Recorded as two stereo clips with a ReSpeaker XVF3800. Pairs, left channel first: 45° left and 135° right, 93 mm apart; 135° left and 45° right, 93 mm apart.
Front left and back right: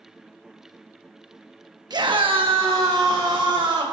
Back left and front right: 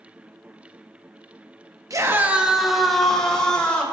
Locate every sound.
1.9 s a scream: 95° right, 1.1 m; by 3.8 s 145° right, 3.5 m